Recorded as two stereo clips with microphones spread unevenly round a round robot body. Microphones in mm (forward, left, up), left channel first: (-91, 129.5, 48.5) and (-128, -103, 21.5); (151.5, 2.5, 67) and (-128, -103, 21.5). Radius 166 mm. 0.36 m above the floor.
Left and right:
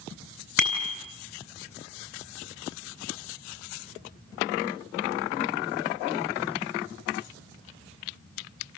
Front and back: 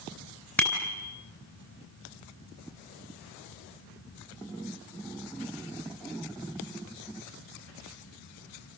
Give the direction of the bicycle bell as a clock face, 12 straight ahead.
8 o'clock.